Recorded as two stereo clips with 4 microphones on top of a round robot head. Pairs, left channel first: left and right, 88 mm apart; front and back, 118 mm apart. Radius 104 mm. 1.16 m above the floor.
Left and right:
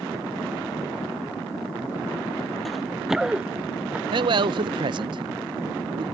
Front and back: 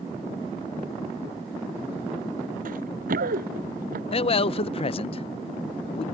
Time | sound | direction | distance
2.6 | running footsteps | straight behind | ?
4.1 | a man speaking | 50° right | ?